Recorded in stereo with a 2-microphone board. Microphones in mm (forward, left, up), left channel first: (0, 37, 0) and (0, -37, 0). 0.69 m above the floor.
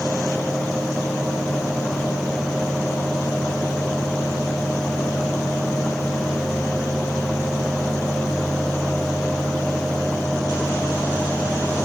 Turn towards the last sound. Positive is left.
No sound to turn to.